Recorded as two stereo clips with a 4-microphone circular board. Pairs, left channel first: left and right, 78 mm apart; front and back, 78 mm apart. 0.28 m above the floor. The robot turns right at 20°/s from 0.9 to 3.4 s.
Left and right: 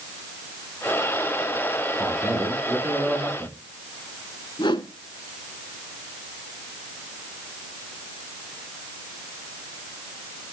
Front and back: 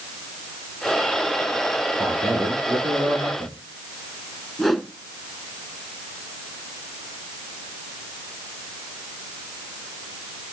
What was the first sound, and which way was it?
A man speaking, 170° right.